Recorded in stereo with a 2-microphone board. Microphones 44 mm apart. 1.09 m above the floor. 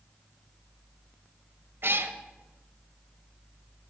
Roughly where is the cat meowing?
Right.